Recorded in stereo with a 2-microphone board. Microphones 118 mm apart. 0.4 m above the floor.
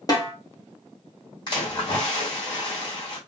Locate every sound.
0.1 s a snare drum: 30° left (ahead or behind), 0.9 m
1.5 s a splash: 40° left (ahead or behind), 1.9 m